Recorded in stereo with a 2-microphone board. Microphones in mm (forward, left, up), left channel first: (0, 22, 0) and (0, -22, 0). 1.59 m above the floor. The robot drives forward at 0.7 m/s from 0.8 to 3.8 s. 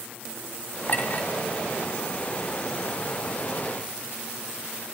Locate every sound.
0.9 s a clink: 45° left (ahead or behind), 3 m